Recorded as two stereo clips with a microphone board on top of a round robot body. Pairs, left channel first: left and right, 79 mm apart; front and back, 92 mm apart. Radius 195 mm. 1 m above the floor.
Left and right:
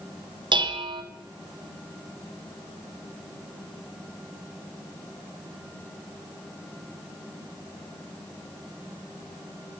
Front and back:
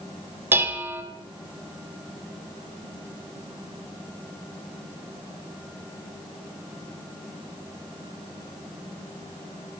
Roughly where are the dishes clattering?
Right.